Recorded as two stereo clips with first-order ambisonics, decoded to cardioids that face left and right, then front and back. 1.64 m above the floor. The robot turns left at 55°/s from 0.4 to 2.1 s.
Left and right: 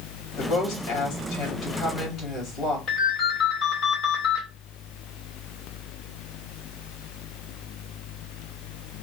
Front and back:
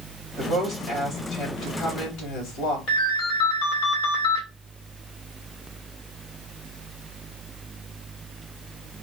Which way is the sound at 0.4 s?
130° left.